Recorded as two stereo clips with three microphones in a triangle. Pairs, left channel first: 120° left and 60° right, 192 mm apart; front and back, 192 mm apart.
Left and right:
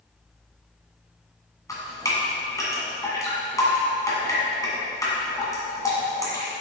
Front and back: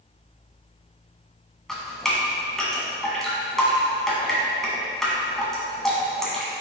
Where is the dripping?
85° left, 1.4 m.